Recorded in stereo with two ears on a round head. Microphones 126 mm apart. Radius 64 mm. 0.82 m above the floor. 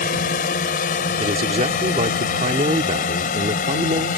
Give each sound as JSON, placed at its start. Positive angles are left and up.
{"t": 0.0, "sound": "a drone", "side_deg": 65}
{"t": 1.2, "sound": "a man speaking", "side_deg": -50}